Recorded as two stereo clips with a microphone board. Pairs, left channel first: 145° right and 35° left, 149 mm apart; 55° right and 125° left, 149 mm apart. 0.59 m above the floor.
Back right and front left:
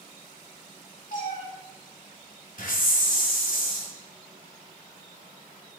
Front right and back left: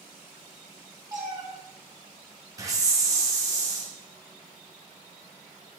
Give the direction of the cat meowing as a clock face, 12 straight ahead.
6 o'clock.